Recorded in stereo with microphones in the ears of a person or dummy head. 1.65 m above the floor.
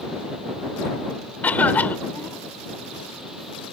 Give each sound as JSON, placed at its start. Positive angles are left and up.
{"t": 1.4, "sound": "a cough", "side_deg": 15}